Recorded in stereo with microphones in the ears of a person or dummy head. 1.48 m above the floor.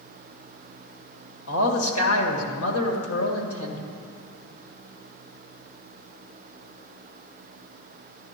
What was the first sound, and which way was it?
A man speaking, 80° left.